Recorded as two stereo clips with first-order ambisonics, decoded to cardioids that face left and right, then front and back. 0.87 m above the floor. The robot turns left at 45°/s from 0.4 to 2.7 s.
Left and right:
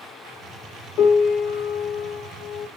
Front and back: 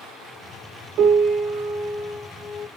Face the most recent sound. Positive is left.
turn(degrees=55)